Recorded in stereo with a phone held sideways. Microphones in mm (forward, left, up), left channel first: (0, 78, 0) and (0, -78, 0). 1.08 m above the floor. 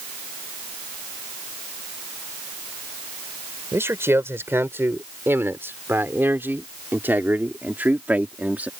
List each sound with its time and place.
3.7 s a man speaking: 15° right (ahead or behind); by 8.7 s 10° right (ahead or behind)